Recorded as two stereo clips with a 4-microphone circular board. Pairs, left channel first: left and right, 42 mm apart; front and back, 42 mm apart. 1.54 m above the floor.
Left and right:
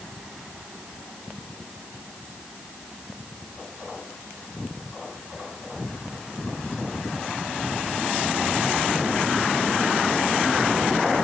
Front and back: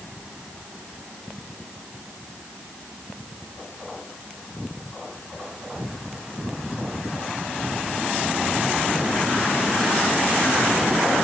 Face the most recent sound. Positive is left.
No sound to turn to.